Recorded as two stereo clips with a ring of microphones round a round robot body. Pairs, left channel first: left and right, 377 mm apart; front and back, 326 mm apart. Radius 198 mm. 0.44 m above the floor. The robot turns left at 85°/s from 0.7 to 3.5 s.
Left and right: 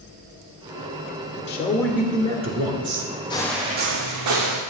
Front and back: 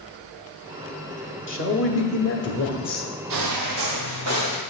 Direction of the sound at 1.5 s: 40° left.